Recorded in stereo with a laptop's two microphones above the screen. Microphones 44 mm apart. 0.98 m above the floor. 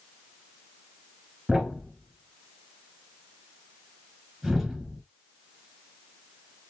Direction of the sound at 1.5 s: 5° right (ahead or behind).